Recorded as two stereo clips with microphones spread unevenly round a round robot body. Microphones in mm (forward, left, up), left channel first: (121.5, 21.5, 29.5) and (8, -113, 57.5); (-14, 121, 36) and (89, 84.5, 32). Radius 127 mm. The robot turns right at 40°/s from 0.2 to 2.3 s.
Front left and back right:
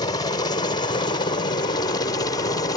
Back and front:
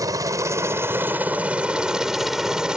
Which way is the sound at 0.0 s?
15° left.